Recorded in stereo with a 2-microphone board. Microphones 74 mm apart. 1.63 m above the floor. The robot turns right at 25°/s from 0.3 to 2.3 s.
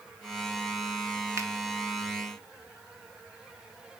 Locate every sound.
1.4 s a finger snap: 40° right (ahead or behind), 1.2 m; by 1.5 s 45° right (ahead or behind), 1.2 m